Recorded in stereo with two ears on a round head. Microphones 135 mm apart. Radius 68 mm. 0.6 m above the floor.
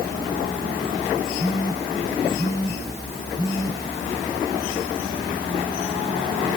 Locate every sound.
1.4 s a phone buzzing: 30° left (ahead or behind), 2 m